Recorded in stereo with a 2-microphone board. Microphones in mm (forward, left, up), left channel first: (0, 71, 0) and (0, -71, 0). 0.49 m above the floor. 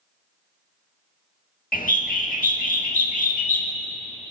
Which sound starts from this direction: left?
A bird, at 1.7 s.